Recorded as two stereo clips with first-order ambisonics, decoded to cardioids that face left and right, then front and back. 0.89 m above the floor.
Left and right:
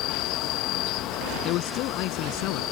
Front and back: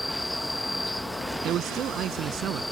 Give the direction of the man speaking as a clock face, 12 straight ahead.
8 o'clock.